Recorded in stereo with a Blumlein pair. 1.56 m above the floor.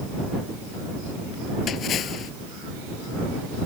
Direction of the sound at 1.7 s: 30° left.